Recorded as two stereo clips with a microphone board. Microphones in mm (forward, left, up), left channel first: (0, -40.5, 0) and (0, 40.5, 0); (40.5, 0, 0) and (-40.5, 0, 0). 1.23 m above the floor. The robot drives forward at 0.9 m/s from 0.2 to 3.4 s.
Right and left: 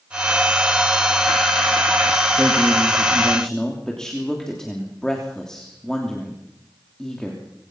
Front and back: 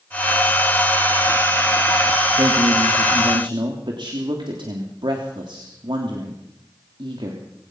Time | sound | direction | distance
2.4 | a man speaking | 165° right | 2 m